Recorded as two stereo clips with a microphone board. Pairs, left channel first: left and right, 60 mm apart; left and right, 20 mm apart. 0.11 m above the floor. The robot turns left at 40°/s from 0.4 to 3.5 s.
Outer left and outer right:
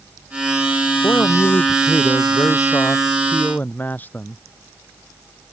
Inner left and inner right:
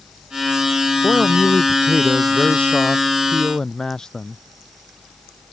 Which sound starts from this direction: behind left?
A man speaking, at 1.0 s.